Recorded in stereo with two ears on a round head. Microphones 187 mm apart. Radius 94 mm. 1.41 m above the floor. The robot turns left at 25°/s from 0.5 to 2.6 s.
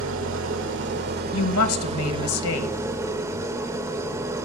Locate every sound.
0.0 s an engine running: 110° right, 1.7 m; by 4.5 s 165° right, 1.7 m
1.3 s a woman speaking: 105° left, 1.8 m; by 2.8 s 75° left, 1.8 m